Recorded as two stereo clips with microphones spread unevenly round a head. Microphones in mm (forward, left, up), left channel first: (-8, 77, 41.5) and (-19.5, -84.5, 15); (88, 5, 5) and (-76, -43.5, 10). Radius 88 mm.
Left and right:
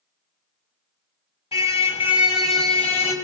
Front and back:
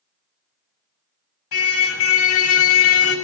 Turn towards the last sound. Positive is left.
turn(degrees=30)